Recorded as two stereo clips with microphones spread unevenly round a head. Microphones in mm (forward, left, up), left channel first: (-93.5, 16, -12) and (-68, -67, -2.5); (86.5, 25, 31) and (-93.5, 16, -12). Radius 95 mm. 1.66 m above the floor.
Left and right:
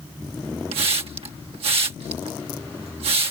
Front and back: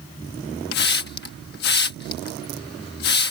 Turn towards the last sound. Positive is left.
turn(degrees=-35)